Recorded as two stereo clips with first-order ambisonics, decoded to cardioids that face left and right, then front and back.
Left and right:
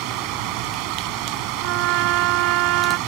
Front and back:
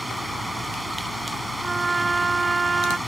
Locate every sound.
0.0 s running water: 90° right
1.6 s a trumpet: 105° right